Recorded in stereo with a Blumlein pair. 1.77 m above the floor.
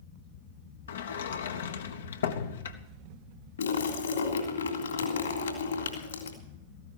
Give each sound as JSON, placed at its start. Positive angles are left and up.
{"t": 0.9, "sound": "a sliding door", "azimuth_deg": 65, "distance_m": 1.1}
{"t": 3.6, "sound": "a splash", "azimuth_deg": 70, "distance_m": 3.0}